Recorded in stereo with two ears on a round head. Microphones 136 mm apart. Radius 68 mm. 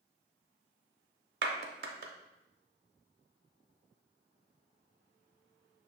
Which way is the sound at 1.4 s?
70° right (ahead or behind).